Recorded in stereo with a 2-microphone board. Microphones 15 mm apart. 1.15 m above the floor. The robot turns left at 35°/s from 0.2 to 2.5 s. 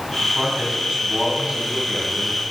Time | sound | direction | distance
0.2 | a man speaking | 70° right | 6.5 m